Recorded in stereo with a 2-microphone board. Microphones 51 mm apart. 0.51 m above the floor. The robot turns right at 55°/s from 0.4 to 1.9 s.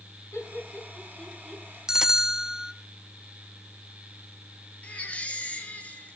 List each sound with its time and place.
0.3 s laughter: 65° left (ahead or behind), 6.5 m; by 1.6 s 5° right (ahead or behind), 6.5 m
1.9 s a bell: 10° right (ahead or behind), 0.6 m
4.8 s a baby crying: 25° left (ahead or behind), 3 m